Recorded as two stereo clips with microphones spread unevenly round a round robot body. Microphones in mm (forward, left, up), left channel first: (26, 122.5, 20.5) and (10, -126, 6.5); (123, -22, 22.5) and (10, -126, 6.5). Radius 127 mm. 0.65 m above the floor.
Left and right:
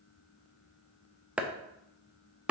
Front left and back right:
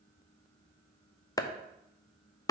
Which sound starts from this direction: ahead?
Chopping, at 1.4 s.